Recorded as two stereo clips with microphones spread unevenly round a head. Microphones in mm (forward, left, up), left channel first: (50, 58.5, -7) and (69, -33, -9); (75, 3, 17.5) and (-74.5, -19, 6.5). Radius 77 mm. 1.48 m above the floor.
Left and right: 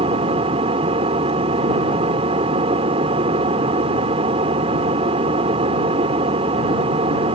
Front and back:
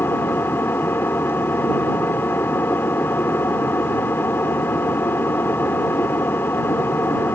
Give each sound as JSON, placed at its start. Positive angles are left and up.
{"t": 0.0, "sound": "an engine running", "azimuth_deg": -65}